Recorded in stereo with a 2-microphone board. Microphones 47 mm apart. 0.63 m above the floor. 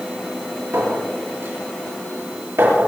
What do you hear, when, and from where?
0.7 s a clink: 65° right (ahead or behind), 9.5 m